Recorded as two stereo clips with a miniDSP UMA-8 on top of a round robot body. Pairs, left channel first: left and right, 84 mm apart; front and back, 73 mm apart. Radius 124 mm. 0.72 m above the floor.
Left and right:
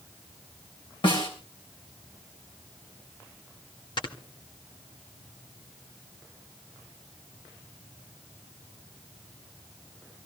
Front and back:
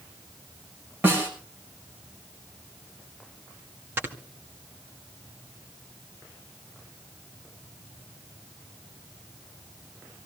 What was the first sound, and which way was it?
A snare drum, 115° left.